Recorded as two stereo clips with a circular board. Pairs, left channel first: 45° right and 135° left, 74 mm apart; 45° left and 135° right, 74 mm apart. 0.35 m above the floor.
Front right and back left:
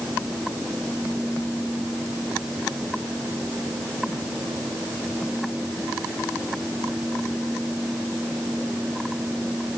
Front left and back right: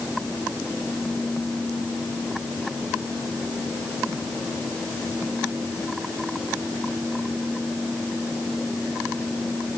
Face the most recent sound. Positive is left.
No sound to turn to.